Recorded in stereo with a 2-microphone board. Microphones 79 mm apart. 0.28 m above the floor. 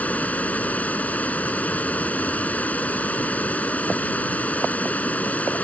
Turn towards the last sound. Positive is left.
turn(degrees=20)  # may be behind; listen again after turning